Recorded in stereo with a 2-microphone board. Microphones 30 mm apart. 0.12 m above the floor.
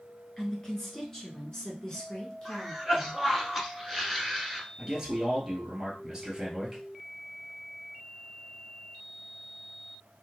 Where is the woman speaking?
10° left (ahead or behind), 1.5 m; by 3.2 s 20° left (ahead or behind), 1.5 m.